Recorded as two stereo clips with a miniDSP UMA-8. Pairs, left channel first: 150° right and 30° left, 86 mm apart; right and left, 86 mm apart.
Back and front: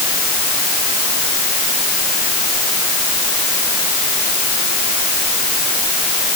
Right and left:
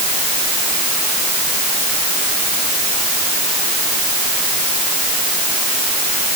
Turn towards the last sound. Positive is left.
No sound to turn to.